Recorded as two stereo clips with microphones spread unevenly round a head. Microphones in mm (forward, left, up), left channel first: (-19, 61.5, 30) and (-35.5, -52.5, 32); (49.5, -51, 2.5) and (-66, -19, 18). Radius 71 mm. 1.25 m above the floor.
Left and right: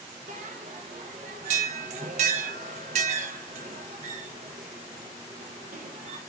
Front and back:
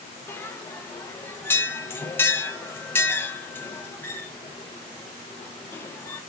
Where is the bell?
90° right, 0.6 m.